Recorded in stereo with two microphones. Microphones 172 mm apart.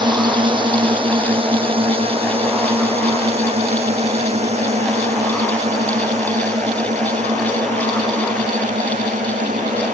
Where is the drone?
25° right (ahead or behind); by 10.0 s 45° right (ahead or behind).